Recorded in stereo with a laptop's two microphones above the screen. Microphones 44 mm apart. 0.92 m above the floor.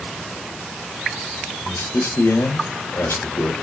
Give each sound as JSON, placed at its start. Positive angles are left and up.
{"t": 1.6, "sound": "a man speaking", "side_deg": 85, "distance_m": 2.5}